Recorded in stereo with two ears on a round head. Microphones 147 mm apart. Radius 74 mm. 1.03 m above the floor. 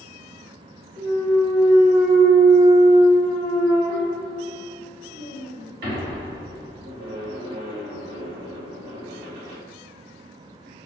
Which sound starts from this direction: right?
A clunk, at 1.0 s.